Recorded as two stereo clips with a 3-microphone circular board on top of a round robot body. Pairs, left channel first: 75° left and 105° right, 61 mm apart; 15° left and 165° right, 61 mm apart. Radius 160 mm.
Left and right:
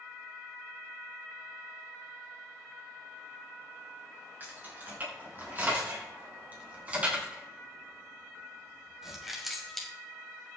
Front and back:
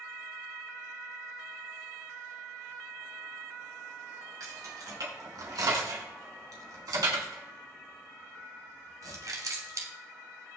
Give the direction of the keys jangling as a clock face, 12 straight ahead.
5 o'clock.